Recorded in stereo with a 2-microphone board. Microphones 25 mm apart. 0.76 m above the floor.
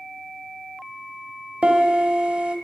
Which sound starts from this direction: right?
A piano, at 1.6 s.